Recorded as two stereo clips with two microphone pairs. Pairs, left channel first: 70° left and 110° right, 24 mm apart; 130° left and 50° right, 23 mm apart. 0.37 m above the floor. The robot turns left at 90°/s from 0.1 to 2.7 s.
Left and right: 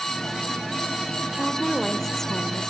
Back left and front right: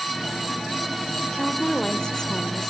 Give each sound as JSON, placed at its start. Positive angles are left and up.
{"t": 1.3, "sound": "a woman speaking", "azimuth_deg": -150, "distance_m": 0.9}